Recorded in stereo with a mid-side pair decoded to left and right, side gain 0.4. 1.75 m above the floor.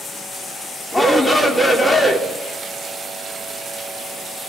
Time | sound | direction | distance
0.9 | a shout | 15° left | 5.5 m